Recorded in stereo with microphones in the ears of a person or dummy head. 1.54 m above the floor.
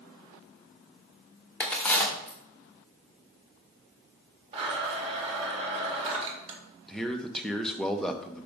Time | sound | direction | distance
1.6 | a crack | 10° left (ahead or behind) | 1.1 m
4.5 | a blender | 30° right (ahead or behind) | 1.6 m
6.9 | a man speaking | centre (ahead or behind) | 0.8 m